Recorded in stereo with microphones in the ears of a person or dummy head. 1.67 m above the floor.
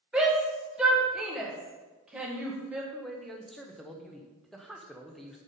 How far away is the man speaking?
About 1.0 m.